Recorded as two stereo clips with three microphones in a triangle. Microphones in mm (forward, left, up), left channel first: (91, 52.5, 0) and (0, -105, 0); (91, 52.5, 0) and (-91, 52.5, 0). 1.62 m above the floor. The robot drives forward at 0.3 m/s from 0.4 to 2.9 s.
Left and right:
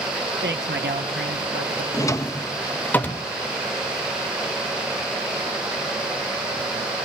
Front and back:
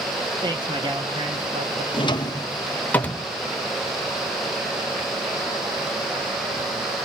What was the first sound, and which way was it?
A man speaking, 115° right.